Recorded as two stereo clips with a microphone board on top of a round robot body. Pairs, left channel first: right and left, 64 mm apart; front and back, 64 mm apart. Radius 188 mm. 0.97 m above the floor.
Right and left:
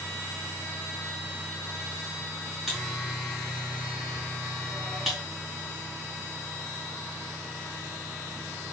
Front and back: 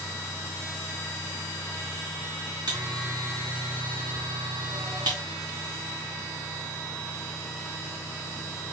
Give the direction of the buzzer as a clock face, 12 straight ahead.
6 o'clock.